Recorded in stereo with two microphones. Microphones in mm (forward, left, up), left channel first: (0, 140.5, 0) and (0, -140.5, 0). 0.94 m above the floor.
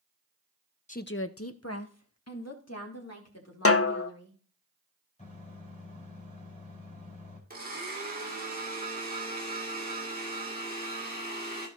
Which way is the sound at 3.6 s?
55° left (ahead or behind).